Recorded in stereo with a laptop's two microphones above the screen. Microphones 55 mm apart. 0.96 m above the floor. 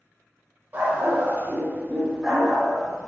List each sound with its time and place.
0.7 s a dog barking: 35° right (ahead or behind), 0.9 m; by 3.1 s 10° left (ahead or behind), 0.8 m